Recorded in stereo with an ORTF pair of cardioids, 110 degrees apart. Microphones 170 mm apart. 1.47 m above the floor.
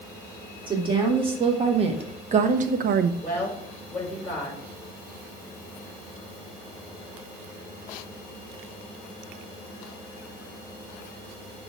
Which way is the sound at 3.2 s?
10° left.